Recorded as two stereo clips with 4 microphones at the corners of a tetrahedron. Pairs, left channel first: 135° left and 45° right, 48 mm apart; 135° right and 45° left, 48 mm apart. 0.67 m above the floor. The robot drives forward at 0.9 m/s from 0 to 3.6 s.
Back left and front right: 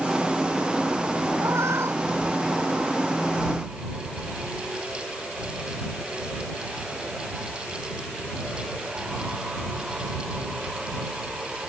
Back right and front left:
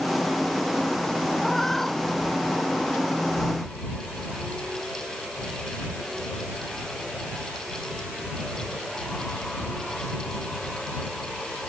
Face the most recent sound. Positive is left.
turn(degrees=-55)